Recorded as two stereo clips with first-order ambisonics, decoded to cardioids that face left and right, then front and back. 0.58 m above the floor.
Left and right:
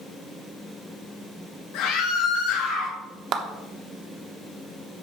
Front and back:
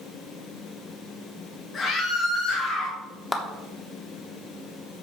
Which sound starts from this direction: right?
A clap, at 3.3 s.